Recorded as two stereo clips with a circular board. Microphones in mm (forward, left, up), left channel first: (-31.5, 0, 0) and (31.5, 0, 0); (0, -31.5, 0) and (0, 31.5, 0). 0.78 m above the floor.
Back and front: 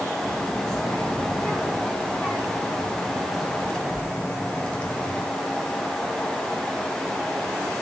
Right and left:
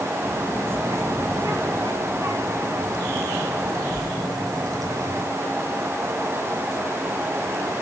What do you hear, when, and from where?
0.2 s a child speaking: 120° left, 7.5 m; by 5.2 s 105° left, 2.5 m